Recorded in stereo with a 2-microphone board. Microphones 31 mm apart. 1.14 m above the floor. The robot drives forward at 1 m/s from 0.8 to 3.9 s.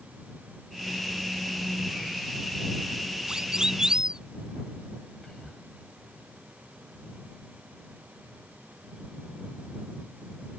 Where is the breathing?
No breathing in this recording.